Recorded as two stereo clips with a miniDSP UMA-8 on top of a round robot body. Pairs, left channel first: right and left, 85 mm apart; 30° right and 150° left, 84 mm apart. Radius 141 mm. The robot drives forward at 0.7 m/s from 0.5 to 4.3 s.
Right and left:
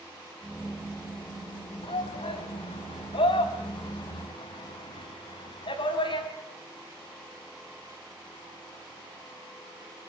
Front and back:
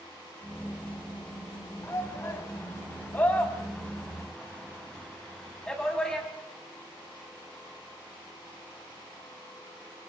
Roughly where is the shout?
Right.